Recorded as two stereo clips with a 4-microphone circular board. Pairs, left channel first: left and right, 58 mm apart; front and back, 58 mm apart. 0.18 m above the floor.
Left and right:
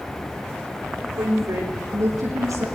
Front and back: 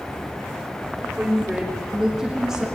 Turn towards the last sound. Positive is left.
turn(degrees=-100)